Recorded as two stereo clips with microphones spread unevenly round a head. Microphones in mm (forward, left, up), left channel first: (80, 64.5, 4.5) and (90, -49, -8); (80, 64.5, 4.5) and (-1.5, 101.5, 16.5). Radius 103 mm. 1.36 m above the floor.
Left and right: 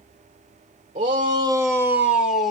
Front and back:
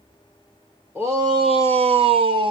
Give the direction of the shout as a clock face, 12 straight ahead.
4 o'clock.